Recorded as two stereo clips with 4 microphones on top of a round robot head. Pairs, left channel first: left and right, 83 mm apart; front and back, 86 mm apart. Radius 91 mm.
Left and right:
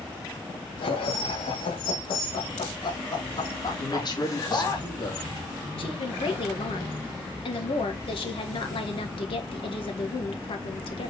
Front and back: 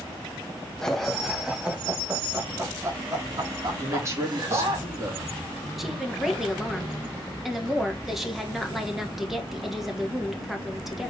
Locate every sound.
0.8 s laughter: 80° left, 2.0 m; by 4.8 s 145° left, 3 m
3.8 s a man speaking: 120° left, 3 m
5.8 s a woman speaking: 90° left, 2 m